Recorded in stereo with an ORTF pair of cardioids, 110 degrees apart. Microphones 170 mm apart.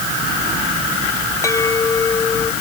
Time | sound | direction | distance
1.4 | a clink | 20° left | ?